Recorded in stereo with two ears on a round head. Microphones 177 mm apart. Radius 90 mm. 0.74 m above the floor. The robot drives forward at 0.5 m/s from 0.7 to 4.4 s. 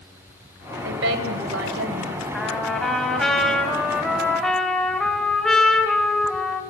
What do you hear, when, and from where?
0.8 s a woman speaking: 65° right (ahead or behind), 3.5 m; by 2.2 s 75° right (ahead or behind), 3.5 m
2.3 s a trumpet: centre (ahead or behind), 3 m; by 6.6 s 5° left (ahead or behind), 2 m